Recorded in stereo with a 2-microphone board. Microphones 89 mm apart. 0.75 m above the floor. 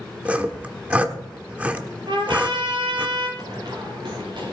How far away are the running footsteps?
About 6.5 m.